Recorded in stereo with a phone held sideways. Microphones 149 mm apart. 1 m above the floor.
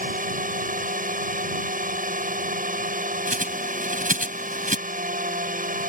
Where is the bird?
65° right (ahead or behind).